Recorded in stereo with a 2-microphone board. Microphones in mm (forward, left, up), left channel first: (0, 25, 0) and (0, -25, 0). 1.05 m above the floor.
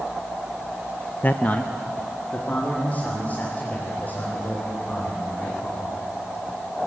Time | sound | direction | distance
1.2 | a man speaking | 35° left (ahead or behind) | 0.5 m